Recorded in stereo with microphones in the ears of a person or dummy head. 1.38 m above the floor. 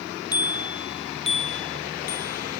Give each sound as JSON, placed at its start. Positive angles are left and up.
{"t": 0.3, "sound": "a bicycle bell", "side_deg": 20}